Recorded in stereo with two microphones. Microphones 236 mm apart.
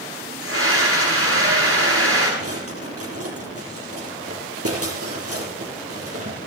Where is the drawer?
75° right (ahead or behind), 4 m.